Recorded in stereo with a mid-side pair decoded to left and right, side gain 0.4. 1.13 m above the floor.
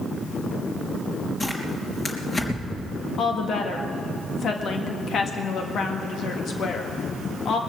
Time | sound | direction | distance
1.4 | tearing paper | 35° left | 3.5 m
3.2 | a woman speaking | 65° left | 1.8 m